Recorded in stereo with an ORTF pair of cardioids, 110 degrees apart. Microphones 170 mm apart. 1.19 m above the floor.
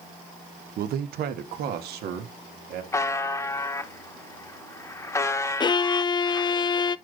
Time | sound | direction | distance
0.8 | a man speaking | 60° right | 1.0 m
2.9 | a buzzer | 15° left | 1.1 m
5.6 | a violin | 25° left | 0.5 m